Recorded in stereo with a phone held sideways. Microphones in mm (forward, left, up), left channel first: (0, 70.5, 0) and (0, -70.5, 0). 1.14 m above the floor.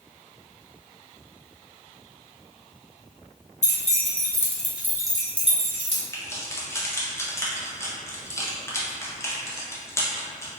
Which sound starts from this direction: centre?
Keys jangling, at 6.1 s.